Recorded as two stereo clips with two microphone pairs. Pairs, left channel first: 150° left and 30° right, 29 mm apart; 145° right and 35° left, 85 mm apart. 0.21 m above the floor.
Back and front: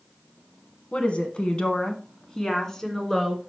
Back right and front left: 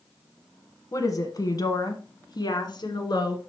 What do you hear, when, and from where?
0.9 s a woman speaking: 175° right, 1.5 m; by 3.4 s 130° right, 2.0 m